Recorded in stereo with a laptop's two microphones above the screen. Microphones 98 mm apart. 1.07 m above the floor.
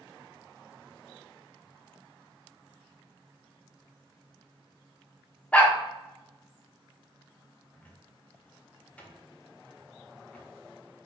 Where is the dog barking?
15° left (ahead or behind), 0.7 m.